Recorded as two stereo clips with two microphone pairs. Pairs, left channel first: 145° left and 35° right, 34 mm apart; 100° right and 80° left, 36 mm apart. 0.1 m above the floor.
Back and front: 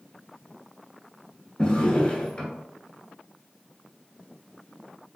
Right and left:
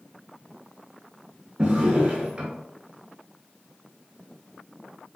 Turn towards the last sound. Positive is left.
turn(degrees=120)